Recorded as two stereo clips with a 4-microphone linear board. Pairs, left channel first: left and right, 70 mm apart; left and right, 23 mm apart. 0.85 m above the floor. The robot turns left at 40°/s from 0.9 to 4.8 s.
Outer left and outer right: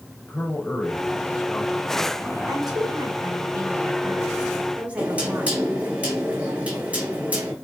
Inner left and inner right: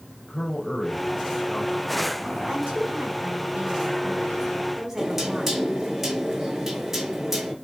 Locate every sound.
0.3 s a man speaking: 25° left (ahead or behind), 4 m; by 2.4 s 30° right (ahead or behind), 4 m
2.5 s a woman speaking: 65° right, 3 m; by 5.6 s 160° right, 3 m
5.0 s knocking: 20° right (ahead or behind), 2.5 m